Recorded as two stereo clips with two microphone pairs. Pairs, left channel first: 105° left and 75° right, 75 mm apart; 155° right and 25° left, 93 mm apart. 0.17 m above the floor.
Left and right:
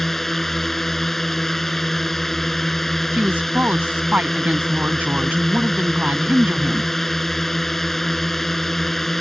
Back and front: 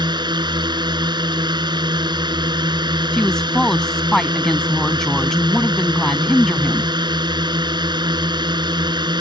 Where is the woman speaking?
75° right.